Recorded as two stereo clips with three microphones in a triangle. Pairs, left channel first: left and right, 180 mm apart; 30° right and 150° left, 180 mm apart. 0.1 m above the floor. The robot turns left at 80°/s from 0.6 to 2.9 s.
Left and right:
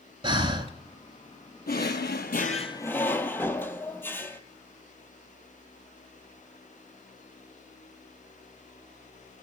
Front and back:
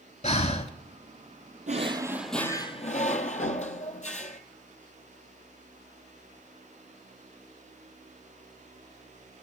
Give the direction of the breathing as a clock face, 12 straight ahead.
1 o'clock.